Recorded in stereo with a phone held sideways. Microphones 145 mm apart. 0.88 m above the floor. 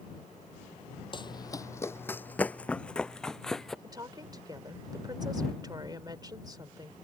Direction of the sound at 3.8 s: 30° right (ahead or behind).